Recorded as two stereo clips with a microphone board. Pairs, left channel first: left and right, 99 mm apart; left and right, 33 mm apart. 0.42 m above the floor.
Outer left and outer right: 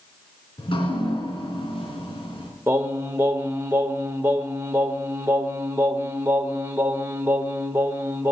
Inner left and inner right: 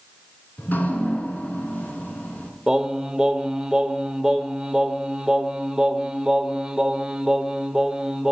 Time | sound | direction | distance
0.6 | dripping | 60° left (ahead or behind) | 3 m
2.7 | singing | 25° right (ahead or behind) | 1.0 m